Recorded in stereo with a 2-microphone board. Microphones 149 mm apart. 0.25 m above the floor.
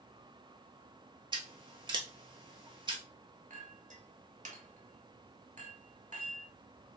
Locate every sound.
1.3 s scissors: 30° right (ahead or behind), 0.8 m
3.5 s a clink: 55° right (ahead or behind), 0.9 m